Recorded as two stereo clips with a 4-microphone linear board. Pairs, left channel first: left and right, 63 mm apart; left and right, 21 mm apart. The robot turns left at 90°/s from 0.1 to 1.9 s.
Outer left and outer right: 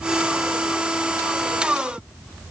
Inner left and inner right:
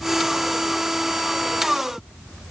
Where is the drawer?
No drawer in this recording.